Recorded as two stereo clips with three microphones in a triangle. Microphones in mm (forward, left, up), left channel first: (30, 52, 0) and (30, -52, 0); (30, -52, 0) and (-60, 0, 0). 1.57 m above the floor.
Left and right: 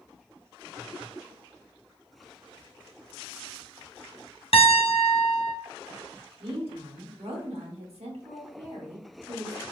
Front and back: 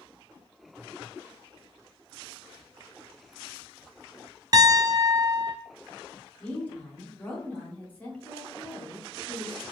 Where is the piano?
100° left, 0.5 m.